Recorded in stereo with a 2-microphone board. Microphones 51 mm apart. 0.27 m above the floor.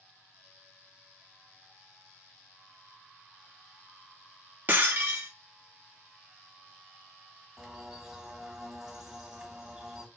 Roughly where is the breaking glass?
Right.